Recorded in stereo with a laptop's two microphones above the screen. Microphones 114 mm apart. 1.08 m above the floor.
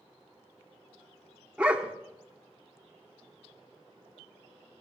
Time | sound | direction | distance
1.6 | a dog barking | 10° right (ahead or behind) | 1.0 m